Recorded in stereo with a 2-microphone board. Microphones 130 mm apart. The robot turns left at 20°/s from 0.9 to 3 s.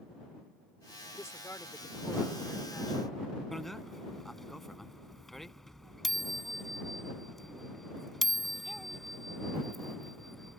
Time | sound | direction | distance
1.1 | a man speaking | 45° left | ?
3.5 | a bicycle bell | centre (ahead or behind) | ?